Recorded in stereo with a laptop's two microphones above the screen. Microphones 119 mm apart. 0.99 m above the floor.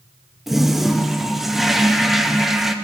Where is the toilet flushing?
5° right (ahead or behind), 0.5 m.